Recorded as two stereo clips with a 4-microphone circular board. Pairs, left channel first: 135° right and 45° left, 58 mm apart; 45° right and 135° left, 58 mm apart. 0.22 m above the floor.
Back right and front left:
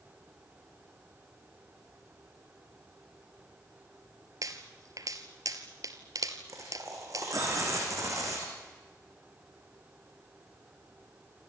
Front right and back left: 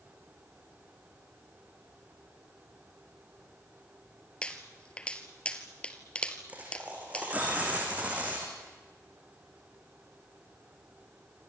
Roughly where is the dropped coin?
Left.